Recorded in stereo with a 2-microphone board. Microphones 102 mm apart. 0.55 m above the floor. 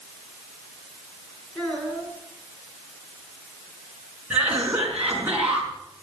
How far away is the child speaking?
About 5.5 m.